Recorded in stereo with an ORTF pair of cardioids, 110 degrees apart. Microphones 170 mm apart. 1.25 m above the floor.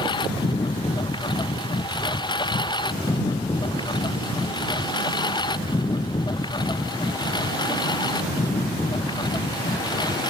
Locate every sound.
0.0 s a lawn mower: 25° left